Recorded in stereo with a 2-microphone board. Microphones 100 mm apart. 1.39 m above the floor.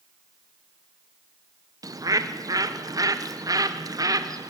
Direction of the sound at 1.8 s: 35° right (ahead or behind).